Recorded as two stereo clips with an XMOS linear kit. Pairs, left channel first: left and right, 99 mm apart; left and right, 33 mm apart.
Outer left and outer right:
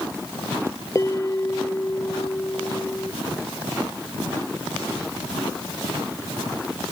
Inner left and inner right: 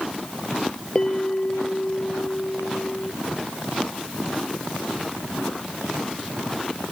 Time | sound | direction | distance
0.9 | a bell | 30° left (ahead or behind) | ?